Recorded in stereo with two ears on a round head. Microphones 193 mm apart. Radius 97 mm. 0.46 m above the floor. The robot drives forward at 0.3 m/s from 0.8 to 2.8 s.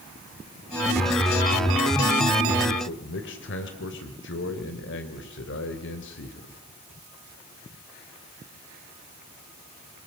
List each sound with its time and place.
2.9 s a man speaking: 55° left (ahead or behind), 2.5 m